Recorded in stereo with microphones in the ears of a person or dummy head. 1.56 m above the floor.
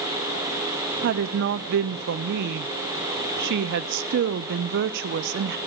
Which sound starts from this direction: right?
A woman speaking, at 1.0 s.